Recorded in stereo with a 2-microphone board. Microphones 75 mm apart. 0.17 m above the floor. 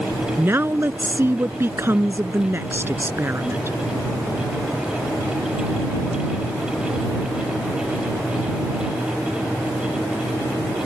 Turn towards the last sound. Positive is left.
turn(degrees=-30)  # may be behind; listen again after turning